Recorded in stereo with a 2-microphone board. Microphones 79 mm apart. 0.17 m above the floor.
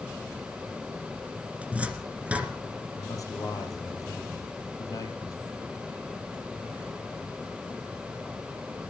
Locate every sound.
1.6 s a cupboard door: 15° right (ahead or behind), 2 m
3.0 s a man speaking: 45° left (ahead or behind), 4 m